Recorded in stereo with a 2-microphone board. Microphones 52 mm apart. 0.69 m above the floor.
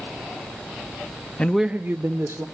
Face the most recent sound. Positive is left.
turn(degrees=-60)  # may be behind; listen again after turning